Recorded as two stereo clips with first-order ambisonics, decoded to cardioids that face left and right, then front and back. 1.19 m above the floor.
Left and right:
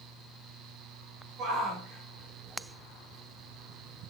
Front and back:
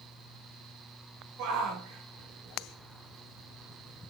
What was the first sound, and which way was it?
A shout, 145° right.